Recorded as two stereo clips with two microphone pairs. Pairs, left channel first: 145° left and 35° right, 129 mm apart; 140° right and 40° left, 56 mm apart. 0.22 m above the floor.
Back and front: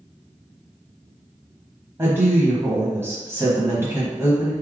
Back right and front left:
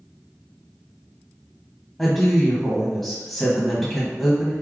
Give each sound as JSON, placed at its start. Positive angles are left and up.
{"t": 2.0, "sound": "a woman speaking", "azimuth_deg": -65, "distance_m": 1.1}